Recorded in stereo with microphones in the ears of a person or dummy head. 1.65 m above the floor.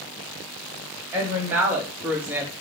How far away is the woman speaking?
About 1.3 m.